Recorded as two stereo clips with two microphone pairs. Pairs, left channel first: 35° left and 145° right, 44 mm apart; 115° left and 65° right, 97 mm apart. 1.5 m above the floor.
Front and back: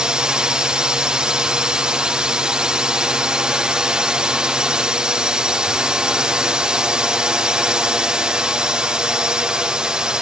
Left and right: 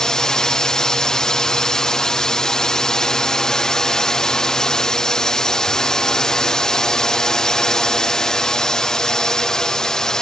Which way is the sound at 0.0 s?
175° right.